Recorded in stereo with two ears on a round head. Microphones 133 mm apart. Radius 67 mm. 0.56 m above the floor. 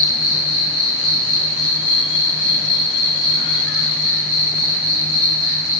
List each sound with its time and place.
0.0 s an insect: 10° right (ahead or behind), 1.0 m